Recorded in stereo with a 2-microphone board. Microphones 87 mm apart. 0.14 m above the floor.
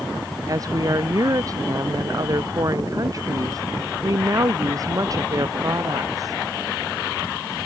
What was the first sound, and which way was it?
A woman speaking, 40° right (ahead or behind).